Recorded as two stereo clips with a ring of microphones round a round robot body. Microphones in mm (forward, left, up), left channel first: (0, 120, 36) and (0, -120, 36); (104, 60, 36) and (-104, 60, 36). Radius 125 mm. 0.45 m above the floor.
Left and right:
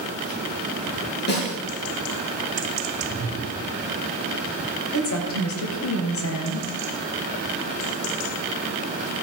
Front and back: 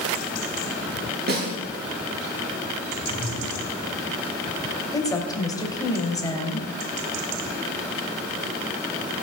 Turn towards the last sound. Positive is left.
turn(degrees=70)